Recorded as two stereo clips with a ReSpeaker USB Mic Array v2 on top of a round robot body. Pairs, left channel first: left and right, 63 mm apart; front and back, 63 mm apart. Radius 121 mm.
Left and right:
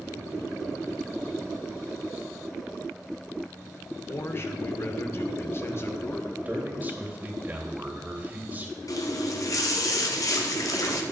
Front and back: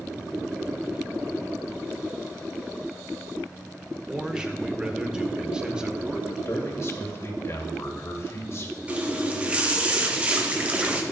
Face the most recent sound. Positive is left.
turn(degrees=115)